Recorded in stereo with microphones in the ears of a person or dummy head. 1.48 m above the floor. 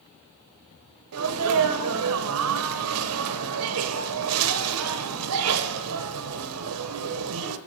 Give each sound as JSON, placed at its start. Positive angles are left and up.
{"t": 1.1, "sound": "a sneeze", "side_deg": -80, "distance_m": 1.1}